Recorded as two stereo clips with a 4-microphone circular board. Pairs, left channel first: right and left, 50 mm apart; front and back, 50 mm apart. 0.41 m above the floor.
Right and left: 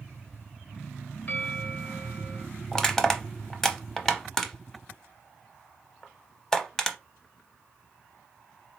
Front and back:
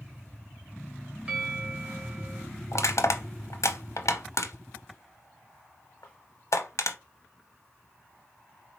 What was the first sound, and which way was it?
A bell, 130° right.